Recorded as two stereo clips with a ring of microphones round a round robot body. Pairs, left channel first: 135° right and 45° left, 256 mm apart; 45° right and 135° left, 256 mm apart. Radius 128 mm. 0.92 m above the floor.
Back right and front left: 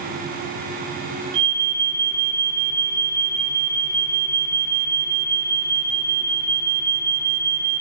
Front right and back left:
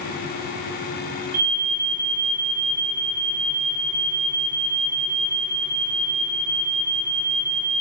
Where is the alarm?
105° left, 4.5 m.